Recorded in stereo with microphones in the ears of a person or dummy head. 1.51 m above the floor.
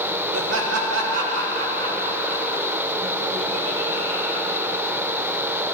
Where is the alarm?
No alarm in this recording.